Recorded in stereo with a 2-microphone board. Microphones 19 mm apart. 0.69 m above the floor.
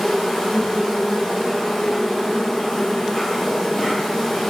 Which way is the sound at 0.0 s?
35° left (ahead or behind).